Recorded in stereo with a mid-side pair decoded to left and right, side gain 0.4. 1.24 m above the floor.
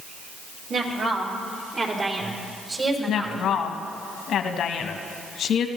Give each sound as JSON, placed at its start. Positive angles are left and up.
{"t": 0.7, "sound": "a woman speaking", "azimuth_deg": -70, "distance_m": 3.0}
{"t": 3.1, "sound": "a woman speaking", "azimuth_deg": 70, "distance_m": 1.2}